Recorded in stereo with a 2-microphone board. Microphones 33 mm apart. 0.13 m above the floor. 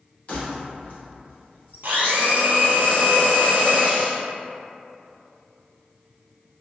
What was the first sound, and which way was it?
Keys jangling, 45° left (ahead or behind).